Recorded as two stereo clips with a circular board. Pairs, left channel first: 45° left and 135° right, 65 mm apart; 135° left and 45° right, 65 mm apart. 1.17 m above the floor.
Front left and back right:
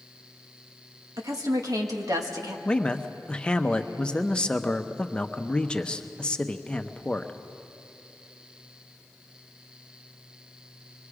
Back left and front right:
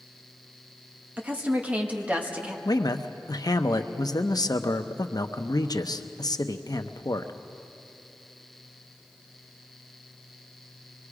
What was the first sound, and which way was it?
A woman speaking, 110° right.